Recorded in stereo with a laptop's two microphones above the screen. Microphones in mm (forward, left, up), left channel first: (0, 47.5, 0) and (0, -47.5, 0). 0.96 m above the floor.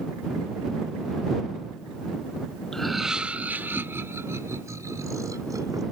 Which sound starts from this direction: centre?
Laughter, at 2.7 s.